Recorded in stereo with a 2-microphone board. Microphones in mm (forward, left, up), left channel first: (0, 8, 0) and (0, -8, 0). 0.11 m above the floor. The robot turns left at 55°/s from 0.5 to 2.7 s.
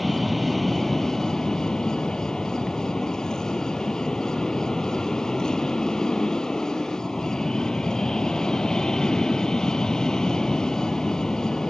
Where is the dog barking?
No dog barking in this recording.